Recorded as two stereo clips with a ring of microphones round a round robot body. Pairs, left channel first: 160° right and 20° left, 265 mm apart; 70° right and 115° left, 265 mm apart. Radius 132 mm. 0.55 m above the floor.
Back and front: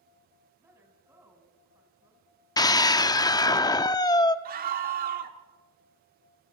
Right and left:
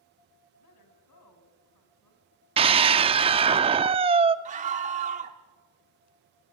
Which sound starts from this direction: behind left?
A scream, at 2.6 s.